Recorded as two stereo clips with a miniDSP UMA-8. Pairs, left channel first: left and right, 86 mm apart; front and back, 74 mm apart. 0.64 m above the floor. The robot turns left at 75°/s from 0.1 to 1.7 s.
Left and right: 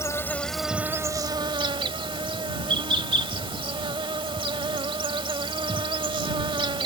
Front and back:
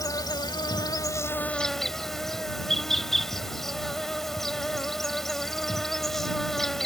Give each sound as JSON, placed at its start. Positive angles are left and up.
{"t": 0.0, "sound": "an insect", "azimuth_deg": 35}